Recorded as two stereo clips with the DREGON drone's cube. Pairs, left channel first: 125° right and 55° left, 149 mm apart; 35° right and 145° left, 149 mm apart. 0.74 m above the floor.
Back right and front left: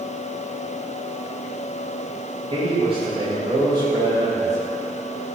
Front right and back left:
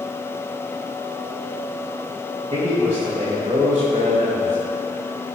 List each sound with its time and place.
2.5 s a man speaking: 105° left, 4 m; by 4.6 s 120° left, 4.5 m